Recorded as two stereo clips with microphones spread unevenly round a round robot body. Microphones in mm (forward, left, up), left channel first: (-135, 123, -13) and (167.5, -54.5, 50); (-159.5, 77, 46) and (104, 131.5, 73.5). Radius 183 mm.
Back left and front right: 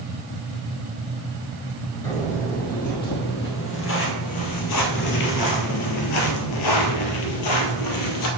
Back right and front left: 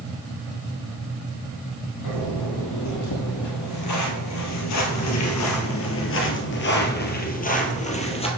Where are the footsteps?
135° right, 2.5 m; by 8.3 s 125° left, 1.9 m.